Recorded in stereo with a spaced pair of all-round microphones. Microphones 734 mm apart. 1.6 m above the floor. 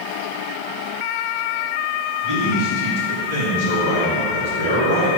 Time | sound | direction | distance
2.2 | a man speaking | 45° right (ahead or behind) | 2.5 m